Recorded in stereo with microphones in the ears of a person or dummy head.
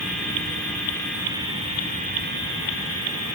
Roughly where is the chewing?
No chewing in this recording.